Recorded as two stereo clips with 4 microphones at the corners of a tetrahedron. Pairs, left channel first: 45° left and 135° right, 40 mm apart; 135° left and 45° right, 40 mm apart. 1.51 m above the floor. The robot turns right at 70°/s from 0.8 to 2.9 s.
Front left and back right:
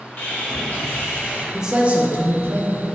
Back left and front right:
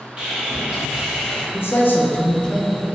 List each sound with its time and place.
0.2 s sawing: 15° left, 0.9 m; by 1.4 s 60° left, 0.9 m
1.5 s a man speaking: 145° left, 0.6 m; by 2.8 s 125° right, 0.6 m